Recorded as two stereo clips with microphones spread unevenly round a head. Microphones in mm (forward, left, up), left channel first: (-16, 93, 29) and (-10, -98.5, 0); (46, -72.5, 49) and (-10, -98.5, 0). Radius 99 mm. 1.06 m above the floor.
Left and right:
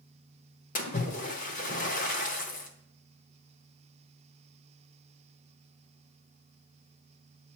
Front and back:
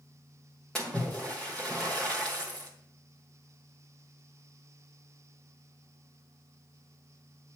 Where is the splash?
65° left, 1.0 m.